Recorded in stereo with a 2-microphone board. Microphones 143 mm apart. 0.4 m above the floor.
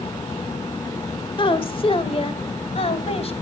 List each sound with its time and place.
1.4 s a woman speaking: 35° left (ahead or behind), 1.5 m; by 3.3 s 45° left (ahead or behind), 2.5 m